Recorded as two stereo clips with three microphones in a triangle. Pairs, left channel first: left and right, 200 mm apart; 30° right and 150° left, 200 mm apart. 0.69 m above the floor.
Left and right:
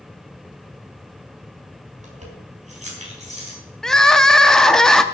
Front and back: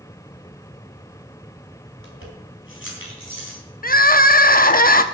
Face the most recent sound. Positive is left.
turn(degrees=0)